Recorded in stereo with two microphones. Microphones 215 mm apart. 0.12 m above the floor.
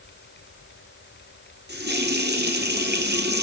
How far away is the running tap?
About 1.8 m.